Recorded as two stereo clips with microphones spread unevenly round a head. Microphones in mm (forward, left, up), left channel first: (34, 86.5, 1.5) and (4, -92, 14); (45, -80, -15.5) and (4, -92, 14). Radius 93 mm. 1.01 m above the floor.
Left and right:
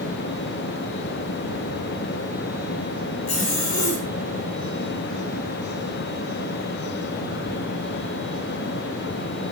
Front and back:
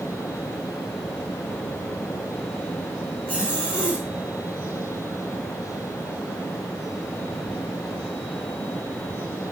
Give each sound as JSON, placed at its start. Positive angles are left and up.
{"t": 3.3, "sound": "a zipper", "azimuth_deg": 85, "distance_m": 4.5}